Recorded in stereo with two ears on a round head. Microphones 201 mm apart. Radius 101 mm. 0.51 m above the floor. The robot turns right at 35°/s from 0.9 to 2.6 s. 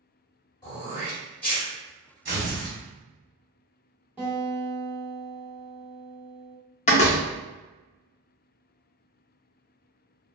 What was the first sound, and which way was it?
Throat clearing, 20° left (ahead or behind).